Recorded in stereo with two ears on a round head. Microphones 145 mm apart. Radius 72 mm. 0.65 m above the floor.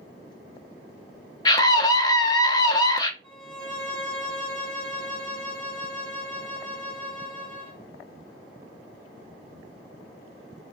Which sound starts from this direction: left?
A scream, at 1.4 s.